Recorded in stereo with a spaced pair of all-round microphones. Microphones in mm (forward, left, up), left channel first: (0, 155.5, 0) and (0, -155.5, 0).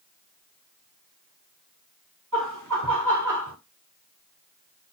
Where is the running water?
I don't hear running water.